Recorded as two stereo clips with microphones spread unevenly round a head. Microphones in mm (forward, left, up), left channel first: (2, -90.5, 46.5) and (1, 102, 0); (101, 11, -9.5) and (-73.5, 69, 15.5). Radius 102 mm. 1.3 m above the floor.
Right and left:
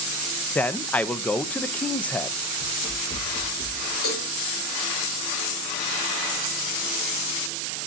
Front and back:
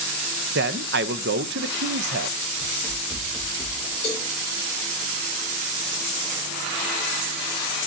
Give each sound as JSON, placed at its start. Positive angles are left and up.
{"t": 0.6, "sound": "a man speaking", "azimuth_deg": 180, "distance_m": 0.5}
{"t": 2.6, "sound": "running footsteps", "azimuth_deg": -100, "distance_m": 2.5}
{"t": 4.0, "sound": "a cowbell", "azimuth_deg": -80, "distance_m": 5.0}